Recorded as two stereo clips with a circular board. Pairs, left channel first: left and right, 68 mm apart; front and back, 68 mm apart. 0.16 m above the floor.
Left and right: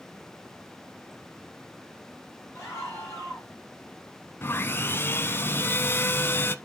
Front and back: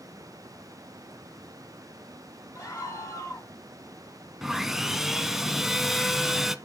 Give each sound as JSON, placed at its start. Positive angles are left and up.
{"t": 2.5, "sound": "a scream", "azimuth_deg": 45, "distance_m": 3.5}
{"t": 4.4, "sound": "sawing", "azimuth_deg": 100, "distance_m": 0.7}